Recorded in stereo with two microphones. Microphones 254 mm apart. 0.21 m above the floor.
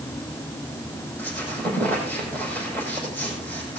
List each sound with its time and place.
1.2 s a squeak: 5° left (ahead or behind), 6 m